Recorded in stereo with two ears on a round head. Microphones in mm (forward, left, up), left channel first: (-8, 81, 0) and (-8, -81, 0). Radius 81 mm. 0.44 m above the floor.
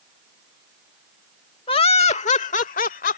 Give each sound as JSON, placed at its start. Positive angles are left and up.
{"t": 1.7, "sound": "laughter", "side_deg": 30}